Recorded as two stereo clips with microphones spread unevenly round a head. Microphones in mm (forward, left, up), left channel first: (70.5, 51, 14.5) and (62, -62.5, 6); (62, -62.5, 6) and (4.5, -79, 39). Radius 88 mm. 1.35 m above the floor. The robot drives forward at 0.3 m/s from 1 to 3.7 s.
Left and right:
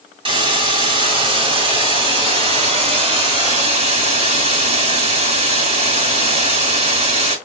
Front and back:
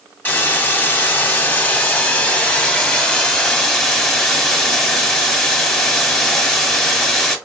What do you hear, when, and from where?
0.2 s a hiss: 65° right, 2 m; by 7.4 s 90° right, 2.0 m